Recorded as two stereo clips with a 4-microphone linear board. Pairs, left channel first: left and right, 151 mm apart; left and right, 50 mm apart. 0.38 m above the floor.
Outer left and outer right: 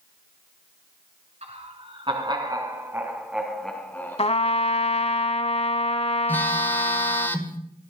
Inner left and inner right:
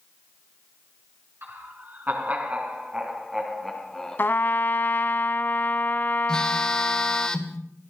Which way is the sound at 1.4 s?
45° right (ahead or behind).